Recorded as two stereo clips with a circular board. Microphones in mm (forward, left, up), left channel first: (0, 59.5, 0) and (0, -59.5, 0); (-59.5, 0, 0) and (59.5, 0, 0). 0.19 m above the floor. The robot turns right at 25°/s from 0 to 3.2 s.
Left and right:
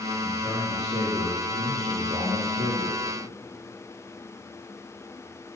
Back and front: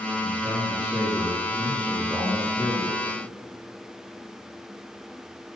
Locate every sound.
0.2 s a man speaking: 130° right, 7.5 m; by 3.0 s 65° right, 7.5 m